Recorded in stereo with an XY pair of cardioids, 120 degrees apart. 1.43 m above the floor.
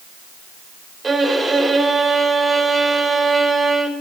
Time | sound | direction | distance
1.0 | a violin | 15° right | 2.5 m